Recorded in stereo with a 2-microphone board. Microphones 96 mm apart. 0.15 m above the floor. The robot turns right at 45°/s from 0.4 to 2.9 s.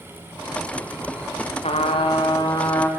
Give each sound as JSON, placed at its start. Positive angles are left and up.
{"t": 1.6, "sound": "a trumpet", "azimuth_deg": 95, "distance_m": 4.0}